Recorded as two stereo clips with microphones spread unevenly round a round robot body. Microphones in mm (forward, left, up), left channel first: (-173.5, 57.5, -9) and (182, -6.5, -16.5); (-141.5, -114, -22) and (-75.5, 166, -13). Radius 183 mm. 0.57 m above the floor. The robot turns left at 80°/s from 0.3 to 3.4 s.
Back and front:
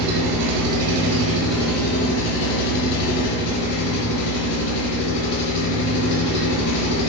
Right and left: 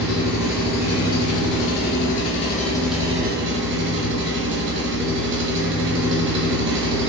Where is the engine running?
15° left, 0.7 m; by 7.1 s 125° left, 0.7 m.